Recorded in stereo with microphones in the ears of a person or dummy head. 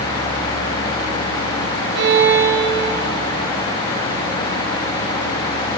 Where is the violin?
65° right (ahead or behind), 1.0 m.